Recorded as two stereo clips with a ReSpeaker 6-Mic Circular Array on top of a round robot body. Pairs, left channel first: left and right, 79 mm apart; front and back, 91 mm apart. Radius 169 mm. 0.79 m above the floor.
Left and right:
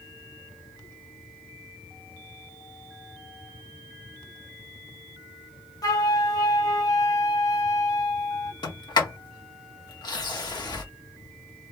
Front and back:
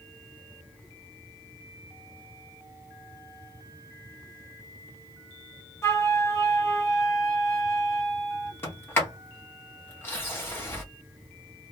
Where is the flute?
55° left, 1.3 m.